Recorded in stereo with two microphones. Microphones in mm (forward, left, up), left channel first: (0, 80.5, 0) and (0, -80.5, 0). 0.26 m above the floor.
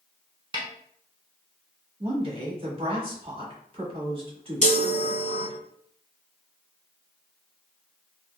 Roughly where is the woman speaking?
Right.